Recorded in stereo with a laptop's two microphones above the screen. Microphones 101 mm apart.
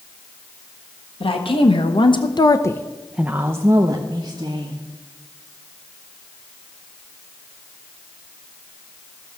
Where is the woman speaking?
60° left (ahead or behind), 1.3 m; by 4.8 s 45° right (ahead or behind), 1.6 m.